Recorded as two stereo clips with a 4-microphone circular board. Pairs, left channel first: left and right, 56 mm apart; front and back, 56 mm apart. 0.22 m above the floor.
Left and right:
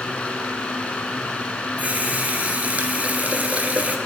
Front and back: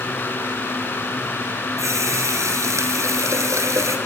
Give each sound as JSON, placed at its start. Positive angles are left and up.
{"t": 1.8, "sound": "a running tap", "azimuth_deg": -155, "distance_m": 3.0}